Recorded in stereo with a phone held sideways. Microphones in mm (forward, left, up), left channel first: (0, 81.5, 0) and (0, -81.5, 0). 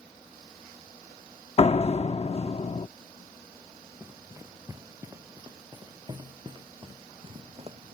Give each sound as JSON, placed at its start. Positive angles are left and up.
{"t": 1.6, "sound": "a door slam", "side_deg": 40}
{"t": 4.0, "sound": "running footsteps", "side_deg": -15}